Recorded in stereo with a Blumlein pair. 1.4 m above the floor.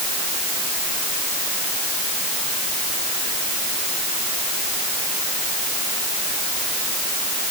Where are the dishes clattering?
No dishes clattering in this recording.